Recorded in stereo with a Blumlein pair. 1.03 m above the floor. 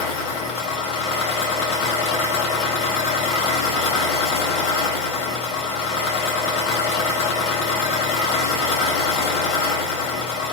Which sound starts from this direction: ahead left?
An engine running, at 0.0 s.